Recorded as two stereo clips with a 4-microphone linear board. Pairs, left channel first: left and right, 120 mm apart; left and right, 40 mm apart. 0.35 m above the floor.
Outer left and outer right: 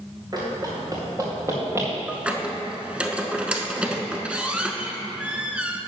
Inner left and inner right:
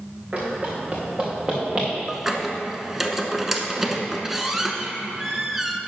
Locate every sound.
0.3 s running footsteps: 35° right (ahead or behind), 3 m; by 1.9 s 20° right (ahead or behind), 2.5 m
2.1 s a squeak: 10° right (ahead or behind), 0.8 m